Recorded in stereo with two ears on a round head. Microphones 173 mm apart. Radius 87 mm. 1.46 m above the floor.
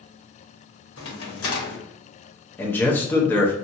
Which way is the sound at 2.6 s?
10° left (ahead or behind).